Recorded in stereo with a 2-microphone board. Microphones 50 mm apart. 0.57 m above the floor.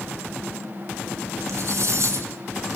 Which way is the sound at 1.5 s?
65° right (ahead or behind).